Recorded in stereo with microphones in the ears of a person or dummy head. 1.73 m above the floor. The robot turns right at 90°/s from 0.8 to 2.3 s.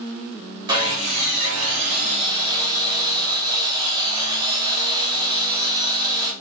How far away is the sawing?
About 1.1 m.